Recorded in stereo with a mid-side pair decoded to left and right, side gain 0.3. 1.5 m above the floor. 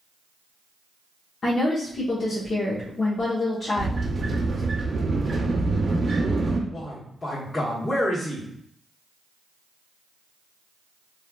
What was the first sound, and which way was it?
A woman speaking, 60° left.